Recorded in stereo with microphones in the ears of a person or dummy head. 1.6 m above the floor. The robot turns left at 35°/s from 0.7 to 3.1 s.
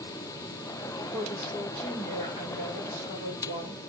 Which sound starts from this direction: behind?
A woman speaking, at 1.1 s.